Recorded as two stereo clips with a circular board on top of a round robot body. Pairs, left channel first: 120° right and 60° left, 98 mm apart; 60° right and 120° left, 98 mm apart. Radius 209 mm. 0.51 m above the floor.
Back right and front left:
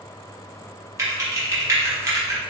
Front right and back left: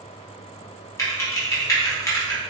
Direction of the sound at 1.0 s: Straight ahead.